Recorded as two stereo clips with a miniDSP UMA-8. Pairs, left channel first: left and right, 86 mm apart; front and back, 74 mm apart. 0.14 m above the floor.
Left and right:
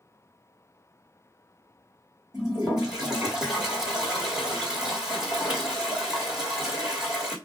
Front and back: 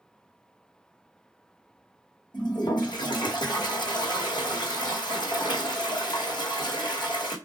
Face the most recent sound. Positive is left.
turn(degrees=-10)